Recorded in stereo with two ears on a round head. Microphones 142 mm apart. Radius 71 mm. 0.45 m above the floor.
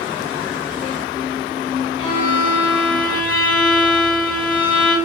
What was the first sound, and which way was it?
A violin, 35° left (ahead or behind).